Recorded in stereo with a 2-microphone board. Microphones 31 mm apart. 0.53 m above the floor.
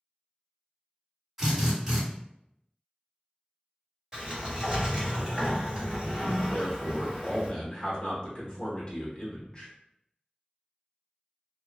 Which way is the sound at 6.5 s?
30° left (ahead or behind).